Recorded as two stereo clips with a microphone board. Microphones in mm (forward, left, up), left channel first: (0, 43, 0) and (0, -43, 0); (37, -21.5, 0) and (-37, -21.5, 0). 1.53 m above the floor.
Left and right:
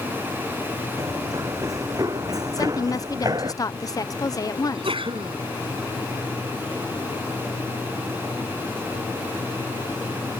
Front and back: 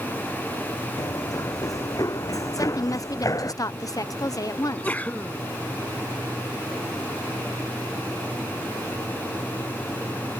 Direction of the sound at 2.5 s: 40° left.